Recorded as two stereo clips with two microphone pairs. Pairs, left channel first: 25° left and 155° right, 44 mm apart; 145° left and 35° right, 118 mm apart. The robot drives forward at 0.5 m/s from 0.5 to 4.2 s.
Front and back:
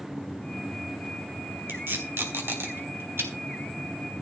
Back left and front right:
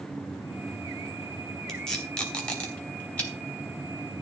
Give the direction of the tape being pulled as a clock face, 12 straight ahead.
4 o'clock.